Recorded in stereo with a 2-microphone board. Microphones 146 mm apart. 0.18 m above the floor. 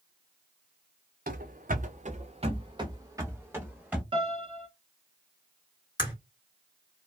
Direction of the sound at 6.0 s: 30° left (ahead or behind).